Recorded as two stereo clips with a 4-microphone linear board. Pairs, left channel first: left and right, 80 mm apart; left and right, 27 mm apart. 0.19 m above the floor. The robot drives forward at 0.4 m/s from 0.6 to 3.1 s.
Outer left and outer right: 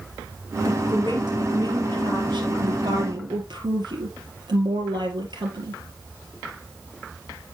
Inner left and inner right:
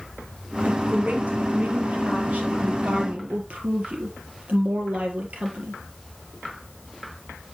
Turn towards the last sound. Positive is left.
turn(degrees=-65)  # may be behind; listen again after turning